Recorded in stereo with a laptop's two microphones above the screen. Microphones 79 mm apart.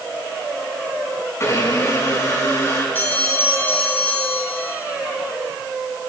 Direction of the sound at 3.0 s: 25° left (ahead or behind).